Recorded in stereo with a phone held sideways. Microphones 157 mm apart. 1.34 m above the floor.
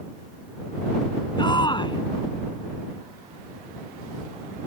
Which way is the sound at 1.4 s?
30° left (ahead or behind).